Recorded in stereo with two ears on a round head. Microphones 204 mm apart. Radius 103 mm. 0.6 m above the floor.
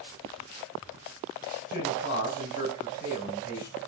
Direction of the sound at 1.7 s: 40° left (ahead or behind).